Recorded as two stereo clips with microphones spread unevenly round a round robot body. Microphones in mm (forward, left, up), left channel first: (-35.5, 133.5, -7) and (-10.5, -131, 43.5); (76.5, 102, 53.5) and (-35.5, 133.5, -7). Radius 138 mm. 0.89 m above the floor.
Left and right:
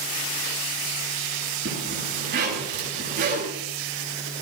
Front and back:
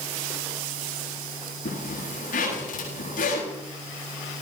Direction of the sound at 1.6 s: 25° right.